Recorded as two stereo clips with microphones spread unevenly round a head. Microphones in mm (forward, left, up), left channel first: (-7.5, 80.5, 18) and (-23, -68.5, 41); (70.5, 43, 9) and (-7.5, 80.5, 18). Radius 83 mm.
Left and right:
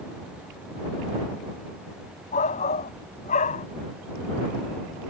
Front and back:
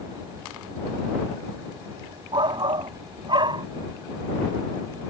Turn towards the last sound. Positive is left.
turn(degrees=125)